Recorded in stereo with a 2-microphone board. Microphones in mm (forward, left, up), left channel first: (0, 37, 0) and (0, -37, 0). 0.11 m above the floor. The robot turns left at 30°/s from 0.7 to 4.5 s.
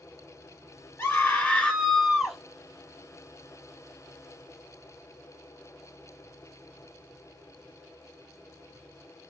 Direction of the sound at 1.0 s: 30° left.